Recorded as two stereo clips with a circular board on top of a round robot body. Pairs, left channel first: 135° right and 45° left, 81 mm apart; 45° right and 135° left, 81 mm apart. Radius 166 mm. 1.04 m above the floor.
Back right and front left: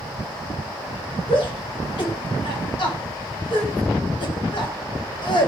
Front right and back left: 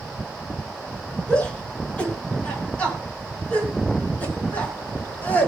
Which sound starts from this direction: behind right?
A shout, at 1.3 s.